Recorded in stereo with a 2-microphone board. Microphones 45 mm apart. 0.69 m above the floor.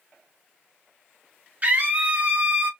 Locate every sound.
1.6 s a scream: 35° right (ahead or behind), 1.5 m